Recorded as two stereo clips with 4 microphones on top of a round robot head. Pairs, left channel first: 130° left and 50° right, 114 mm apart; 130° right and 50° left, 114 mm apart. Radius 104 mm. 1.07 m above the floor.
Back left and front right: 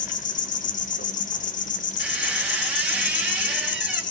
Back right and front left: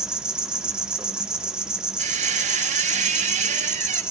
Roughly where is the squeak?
Ahead left.